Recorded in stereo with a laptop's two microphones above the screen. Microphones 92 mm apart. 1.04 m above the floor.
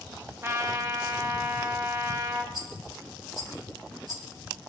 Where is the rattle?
45° right (ahead or behind), 1.5 m.